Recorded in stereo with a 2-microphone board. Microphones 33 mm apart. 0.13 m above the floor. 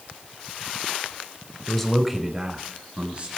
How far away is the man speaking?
About 1.3 m.